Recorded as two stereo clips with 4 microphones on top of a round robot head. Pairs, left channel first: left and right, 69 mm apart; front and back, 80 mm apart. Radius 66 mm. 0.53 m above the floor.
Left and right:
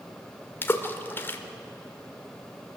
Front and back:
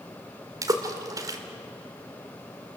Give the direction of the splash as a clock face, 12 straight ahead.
7 o'clock.